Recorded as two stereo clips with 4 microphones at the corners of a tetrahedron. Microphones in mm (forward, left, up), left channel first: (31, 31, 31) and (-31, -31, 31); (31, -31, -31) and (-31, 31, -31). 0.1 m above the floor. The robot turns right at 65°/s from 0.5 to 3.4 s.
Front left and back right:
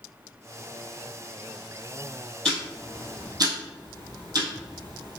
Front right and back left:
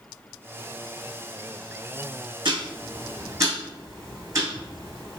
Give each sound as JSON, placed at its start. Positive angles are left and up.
{"t": 2.5, "sound": "ticking", "azimuth_deg": 130, "distance_m": 1.5}